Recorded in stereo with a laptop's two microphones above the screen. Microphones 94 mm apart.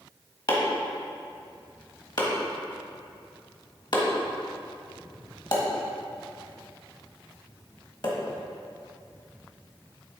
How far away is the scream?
I don't hear a scream.